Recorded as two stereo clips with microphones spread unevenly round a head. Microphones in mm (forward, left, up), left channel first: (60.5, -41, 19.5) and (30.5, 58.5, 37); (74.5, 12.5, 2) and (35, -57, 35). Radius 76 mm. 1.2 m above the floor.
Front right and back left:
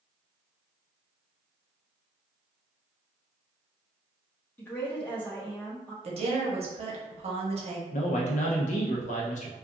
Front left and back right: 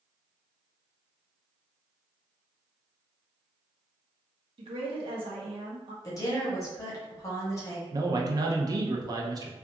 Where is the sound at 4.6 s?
125° right, 0.7 m.